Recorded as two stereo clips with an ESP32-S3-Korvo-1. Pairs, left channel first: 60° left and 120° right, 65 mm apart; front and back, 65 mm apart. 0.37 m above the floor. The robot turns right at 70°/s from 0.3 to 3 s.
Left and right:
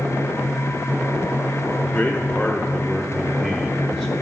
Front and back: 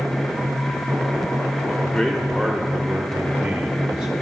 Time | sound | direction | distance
1.8 | a man speaking | 45° left | 0.8 m